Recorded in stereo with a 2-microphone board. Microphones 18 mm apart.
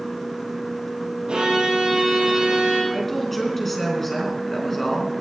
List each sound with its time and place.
1.3 s a violin: 75° right (ahead or behind), 6 m
2.9 s a woman speaking: 10° left (ahead or behind), 3.5 m